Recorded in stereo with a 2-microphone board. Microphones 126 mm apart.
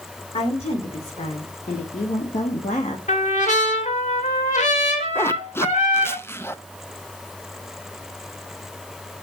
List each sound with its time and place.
0.3 s a woman speaking: 55° left (ahead or behind), 3.5 m; by 3.0 s 65° left (ahead or behind), 1.7 m
3.1 s a trumpet: 75° left (ahead or behind), 2.5 m
5.2 s a zipper: 20° left (ahead or behind), 0.6 m